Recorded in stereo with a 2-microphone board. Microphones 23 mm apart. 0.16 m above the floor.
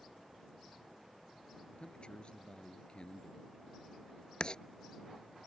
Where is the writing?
40° left (ahead or behind).